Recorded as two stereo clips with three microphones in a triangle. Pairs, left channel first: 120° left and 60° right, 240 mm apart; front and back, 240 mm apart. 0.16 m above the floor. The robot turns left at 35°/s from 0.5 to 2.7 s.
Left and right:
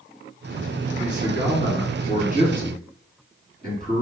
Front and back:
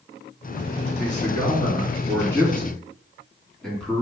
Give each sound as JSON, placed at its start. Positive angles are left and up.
{"t": 1.0, "sound": "a man speaking", "azimuth_deg": -25, "distance_m": 2.0}